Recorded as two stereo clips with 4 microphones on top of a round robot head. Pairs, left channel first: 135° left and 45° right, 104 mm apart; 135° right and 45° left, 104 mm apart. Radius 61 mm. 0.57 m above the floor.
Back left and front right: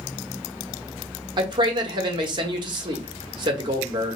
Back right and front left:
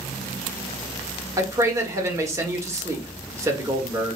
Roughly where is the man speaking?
Ahead.